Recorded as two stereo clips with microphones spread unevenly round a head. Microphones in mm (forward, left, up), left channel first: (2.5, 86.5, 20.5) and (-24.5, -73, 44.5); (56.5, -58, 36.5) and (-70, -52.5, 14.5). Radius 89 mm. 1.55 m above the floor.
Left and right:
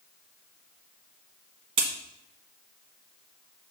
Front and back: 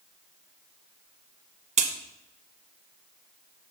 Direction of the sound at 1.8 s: 155° right.